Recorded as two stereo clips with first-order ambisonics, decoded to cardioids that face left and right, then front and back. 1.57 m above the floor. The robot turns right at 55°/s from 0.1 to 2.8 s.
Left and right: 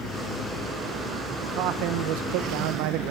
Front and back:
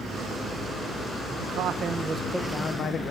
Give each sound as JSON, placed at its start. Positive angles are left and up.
{"t": 1.4, "sound": "a man speaking", "azimuth_deg": -140, "distance_m": 1.4}